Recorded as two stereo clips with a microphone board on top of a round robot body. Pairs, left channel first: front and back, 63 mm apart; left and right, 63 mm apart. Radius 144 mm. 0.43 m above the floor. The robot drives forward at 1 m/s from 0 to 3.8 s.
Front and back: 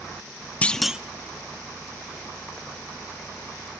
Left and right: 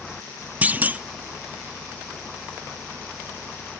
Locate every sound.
0.6 s a clunk: 45° right, 0.7 m; by 1.0 s 125° right, 0.7 m